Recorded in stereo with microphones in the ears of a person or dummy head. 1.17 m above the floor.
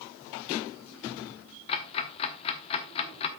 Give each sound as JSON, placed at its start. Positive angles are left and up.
{"t": 1.7, "sound": "ticking", "side_deg": 35, "distance_m": 0.9}